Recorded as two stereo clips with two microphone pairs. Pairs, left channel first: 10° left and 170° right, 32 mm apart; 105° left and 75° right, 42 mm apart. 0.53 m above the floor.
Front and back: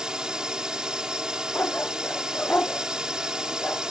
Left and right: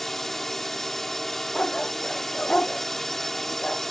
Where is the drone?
175° left.